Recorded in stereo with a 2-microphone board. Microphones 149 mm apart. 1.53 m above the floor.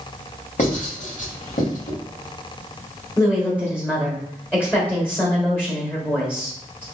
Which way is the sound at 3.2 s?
15° left (ahead or behind).